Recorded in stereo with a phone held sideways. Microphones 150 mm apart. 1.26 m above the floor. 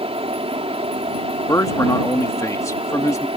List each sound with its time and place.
0.0 s a fan: 40° right (ahead or behind)
1.5 s a man speaking: 20° left (ahead or behind)